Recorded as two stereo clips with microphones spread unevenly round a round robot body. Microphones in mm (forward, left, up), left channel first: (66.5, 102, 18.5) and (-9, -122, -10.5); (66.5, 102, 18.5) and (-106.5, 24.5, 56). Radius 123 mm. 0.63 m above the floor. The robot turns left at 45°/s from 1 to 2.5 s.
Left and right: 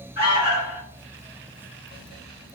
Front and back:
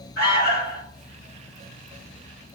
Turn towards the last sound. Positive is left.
turn(degrees=-45)